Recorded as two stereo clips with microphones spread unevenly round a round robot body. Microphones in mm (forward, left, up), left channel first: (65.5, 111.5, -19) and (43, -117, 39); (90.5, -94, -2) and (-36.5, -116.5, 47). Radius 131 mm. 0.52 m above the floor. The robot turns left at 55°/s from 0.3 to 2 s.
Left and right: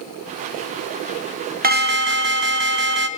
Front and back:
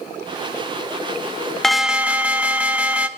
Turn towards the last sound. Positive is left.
turn(degrees=-65)